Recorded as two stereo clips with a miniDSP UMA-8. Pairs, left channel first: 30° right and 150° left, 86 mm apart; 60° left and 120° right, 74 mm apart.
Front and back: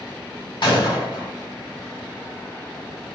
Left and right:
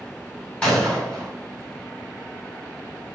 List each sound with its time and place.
0.6 s a gunshot: 15° right, 2.0 m